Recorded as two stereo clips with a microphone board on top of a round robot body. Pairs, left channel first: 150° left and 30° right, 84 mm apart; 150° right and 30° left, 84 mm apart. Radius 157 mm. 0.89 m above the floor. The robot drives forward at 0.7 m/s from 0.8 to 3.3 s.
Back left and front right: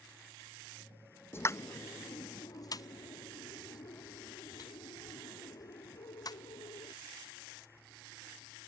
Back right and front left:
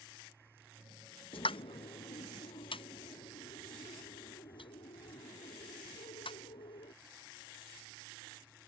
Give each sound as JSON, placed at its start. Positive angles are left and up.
{"t": 1.3, "sound": "a pop", "azimuth_deg": -150}